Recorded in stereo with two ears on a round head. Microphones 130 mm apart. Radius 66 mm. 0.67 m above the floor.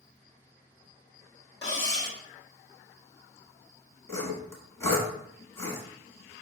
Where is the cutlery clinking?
30° left (ahead or behind), 1.2 m.